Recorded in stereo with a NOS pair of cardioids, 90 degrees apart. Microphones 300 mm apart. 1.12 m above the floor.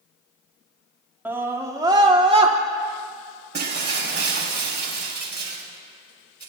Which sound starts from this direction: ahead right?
Breaking glass, at 3.5 s.